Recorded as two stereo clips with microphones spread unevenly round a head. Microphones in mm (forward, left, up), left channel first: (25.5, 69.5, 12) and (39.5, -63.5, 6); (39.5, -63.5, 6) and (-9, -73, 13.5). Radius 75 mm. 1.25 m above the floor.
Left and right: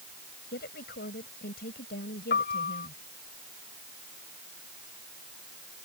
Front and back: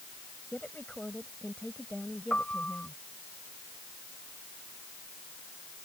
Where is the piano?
90° left.